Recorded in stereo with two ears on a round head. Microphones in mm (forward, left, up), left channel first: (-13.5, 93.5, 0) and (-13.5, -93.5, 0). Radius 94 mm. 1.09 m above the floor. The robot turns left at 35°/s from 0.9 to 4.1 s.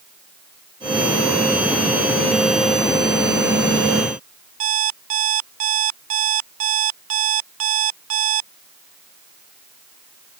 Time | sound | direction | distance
4.6 | an alarm clock | 75° right (ahead or behind) | ?